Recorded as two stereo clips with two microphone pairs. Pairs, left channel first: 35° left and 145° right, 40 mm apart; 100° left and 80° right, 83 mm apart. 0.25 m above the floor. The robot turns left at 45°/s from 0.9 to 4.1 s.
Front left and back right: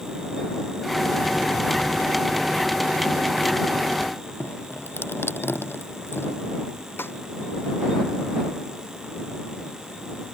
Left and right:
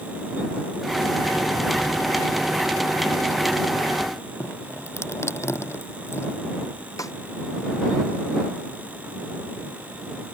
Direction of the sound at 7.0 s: 55° left.